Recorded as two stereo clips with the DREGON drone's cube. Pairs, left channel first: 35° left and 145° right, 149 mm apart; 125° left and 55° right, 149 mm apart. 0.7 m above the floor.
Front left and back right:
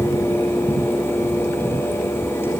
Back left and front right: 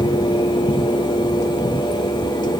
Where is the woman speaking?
No woman speaking in this recording.